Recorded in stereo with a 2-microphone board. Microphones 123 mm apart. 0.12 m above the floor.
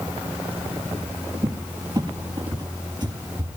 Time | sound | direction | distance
1.4 | a cupboard door | 35° right (ahead or behind) | 2.0 m